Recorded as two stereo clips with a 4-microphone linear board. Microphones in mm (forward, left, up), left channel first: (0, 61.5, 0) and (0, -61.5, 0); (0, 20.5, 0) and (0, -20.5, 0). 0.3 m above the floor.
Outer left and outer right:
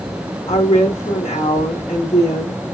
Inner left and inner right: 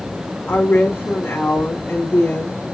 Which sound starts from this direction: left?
A woman speaking, at 0.5 s.